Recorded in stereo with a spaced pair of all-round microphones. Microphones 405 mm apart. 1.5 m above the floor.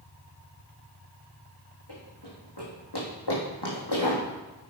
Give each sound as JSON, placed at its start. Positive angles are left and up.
{"t": 1.9, "sound": "running footsteps", "side_deg": 70, "distance_m": 4.5}